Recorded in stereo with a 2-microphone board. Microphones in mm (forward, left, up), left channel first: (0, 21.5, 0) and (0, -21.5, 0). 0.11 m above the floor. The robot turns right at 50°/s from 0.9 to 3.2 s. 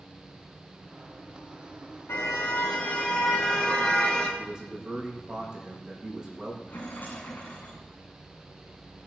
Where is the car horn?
105° left, 7.5 m; by 4.3 s 160° left, 7.5 m.